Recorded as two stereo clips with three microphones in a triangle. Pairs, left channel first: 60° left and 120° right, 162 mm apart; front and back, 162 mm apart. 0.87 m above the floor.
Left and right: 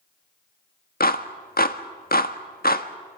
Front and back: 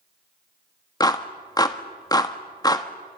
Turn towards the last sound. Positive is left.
turn(degrees=65)